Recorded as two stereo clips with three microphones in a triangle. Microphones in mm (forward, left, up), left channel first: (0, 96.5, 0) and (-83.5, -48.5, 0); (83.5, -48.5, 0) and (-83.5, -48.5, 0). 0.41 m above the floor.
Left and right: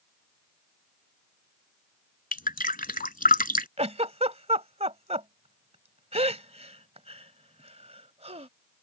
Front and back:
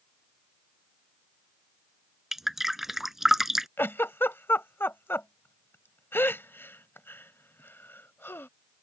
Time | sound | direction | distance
2.3 | dripping | 90° left | ?
3.8 | a giggle | 75° right | ?